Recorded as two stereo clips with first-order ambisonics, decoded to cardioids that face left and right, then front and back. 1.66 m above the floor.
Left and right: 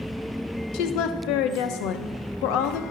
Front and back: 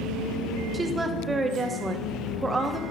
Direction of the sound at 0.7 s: 100° left.